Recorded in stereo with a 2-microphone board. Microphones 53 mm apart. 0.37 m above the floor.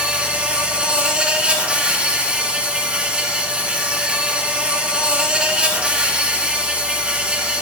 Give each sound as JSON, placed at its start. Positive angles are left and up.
{"t": 0.0, "sound": "an insect", "side_deg": -20, "distance_m": 1.3}